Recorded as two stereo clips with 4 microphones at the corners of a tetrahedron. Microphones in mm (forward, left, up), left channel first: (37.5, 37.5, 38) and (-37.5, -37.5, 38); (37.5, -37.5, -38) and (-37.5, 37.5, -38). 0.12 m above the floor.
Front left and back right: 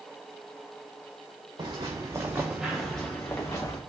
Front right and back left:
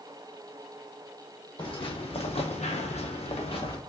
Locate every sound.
1.6 s footsteps: 85° right, 1.0 m; by 3.8 s 10° right, 0.9 m